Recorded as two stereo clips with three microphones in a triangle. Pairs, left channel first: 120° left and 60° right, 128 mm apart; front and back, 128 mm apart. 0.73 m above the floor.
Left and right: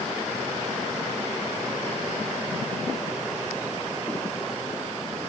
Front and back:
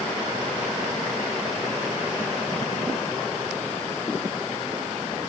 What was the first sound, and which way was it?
Only background noise.